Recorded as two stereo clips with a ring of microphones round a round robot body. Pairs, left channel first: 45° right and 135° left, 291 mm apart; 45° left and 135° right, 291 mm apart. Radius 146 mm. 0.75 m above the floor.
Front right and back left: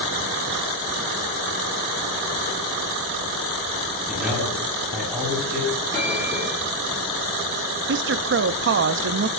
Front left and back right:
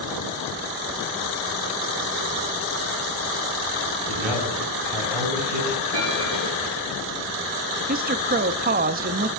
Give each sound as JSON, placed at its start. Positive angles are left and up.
{"t": 4.1, "sound": "a man speaking", "azimuth_deg": -135, "distance_m": 7.5}
{"t": 5.9, "sound": "a bell", "azimuth_deg": -125, "distance_m": 9.0}
{"t": 7.9, "sound": "a woman speaking", "azimuth_deg": 175, "distance_m": 0.6}